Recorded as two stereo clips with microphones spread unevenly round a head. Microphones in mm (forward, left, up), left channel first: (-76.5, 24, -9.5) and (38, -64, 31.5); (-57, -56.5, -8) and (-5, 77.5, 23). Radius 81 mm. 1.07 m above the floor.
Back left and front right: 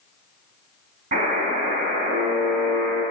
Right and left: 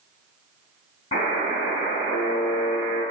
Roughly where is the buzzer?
Ahead right.